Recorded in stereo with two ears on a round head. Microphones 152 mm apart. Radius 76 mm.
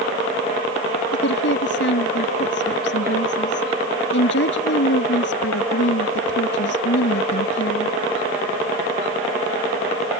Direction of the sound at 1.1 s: 75° left (ahead or behind).